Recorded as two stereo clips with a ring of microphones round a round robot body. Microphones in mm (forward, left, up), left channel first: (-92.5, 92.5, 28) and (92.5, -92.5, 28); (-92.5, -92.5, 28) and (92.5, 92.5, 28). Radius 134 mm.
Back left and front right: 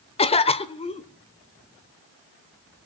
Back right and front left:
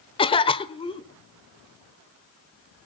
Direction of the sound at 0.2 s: 175° left.